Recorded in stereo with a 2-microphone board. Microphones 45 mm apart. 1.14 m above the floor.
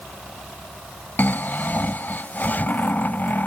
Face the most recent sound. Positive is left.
turn(degrees=45)  # may be behind; listen again after turning